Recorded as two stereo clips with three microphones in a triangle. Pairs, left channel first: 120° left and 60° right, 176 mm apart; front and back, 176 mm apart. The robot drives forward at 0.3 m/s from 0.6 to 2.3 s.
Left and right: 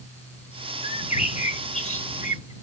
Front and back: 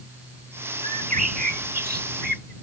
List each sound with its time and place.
0.8 s a bird: 155° left; by 2.5 s 165° left